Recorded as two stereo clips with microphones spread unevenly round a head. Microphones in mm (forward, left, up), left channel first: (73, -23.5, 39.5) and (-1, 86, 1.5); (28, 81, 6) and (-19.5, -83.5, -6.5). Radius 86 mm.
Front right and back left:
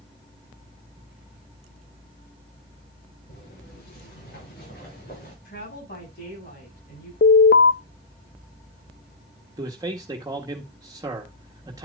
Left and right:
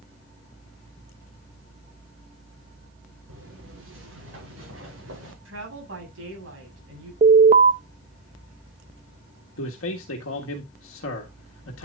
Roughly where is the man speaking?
Ahead left.